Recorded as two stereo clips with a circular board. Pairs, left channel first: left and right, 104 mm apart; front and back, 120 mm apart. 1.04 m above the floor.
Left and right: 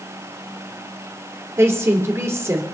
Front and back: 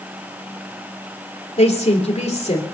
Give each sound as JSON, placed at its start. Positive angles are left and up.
{"t": 1.6, "sound": "a woman speaking", "azimuth_deg": -25, "distance_m": 3.0}